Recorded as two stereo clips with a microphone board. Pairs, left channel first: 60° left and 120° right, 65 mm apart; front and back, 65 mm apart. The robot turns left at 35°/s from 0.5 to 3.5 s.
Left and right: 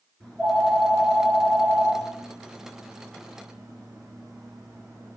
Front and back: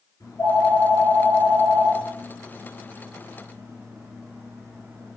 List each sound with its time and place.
0.2 s a phone ringing: 20° right, 2 m; by 5.2 s 125° right, 2 m